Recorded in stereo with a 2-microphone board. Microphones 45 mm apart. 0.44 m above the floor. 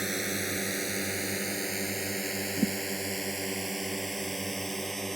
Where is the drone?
5° right (ahead or behind); by 5.2 s 5° left (ahead or behind).